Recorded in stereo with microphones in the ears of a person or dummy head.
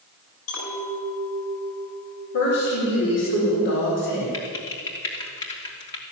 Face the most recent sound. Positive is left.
turn(degrees=20)  # may be behind; listen again after turning